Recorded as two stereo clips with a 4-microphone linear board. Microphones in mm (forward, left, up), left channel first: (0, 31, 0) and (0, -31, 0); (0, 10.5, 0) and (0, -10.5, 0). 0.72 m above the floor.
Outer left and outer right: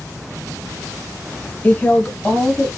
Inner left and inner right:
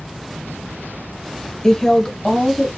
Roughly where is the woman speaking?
Left.